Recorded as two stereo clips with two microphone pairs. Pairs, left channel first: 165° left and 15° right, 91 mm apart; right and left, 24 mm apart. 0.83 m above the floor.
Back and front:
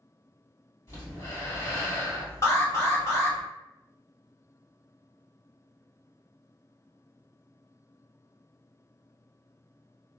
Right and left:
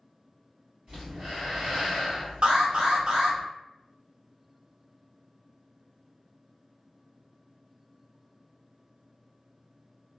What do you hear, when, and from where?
0.9 s breathing: 115° left, 1.8 m
2.4 s an alarm: 110° left, 1.0 m